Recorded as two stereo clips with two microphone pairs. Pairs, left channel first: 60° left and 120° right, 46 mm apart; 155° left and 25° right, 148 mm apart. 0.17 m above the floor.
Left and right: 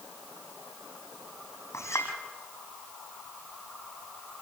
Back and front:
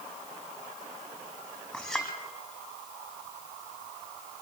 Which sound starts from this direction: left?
A clink, at 1.7 s.